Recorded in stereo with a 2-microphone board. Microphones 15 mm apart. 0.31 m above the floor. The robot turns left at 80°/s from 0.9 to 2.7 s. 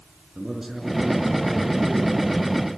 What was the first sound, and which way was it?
A man speaking, 145° right.